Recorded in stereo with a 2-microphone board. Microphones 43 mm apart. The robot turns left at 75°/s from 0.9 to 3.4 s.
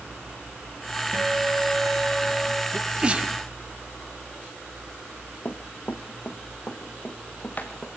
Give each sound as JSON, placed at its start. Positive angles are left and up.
{"t": 1.1, "sound": "a guitar", "azimuth_deg": -80, "distance_m": 2.5}
{"t": 2.7, "sound": "a sneeze", "side_deg": -5, "distance_m": 1.5}
{"t": 5.5, "sound": "running footsteps", "side_deg": 50, "distance_m": 1.4}